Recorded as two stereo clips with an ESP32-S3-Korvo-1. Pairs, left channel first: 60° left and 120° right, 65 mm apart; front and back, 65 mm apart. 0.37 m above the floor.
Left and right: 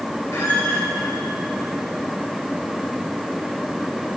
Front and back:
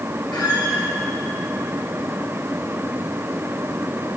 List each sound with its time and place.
0.3 s a squeak: 5° left, 4.5 m